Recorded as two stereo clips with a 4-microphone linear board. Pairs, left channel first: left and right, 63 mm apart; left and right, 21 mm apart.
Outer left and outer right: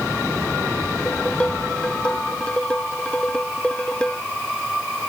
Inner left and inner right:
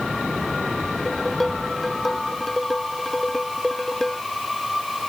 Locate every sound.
1.0 s dishes clattering: 15° left (ahead or behind)